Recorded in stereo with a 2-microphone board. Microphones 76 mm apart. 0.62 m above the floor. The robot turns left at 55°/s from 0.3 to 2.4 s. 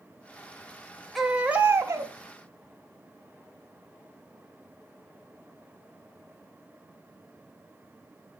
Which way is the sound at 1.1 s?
Straight ahead.